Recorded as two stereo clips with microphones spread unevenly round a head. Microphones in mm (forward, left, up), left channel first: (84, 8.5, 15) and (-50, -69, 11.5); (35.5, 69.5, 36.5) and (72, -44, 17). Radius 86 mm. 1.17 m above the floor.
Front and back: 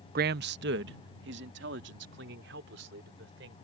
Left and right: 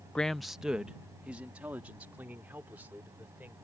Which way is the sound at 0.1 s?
165° right.